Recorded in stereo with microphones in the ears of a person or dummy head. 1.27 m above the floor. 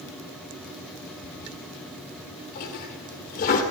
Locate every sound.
1.2 s a toilet flushing: 40° left (ahead or behind), 1.8 m